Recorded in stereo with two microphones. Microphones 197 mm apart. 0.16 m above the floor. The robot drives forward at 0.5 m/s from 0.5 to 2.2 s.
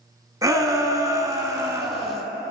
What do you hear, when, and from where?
0.4 s a shout: 20° right (ahead or behind), 1.0 m; by 2.2 s 15° right (ahead or behind), 1.3 m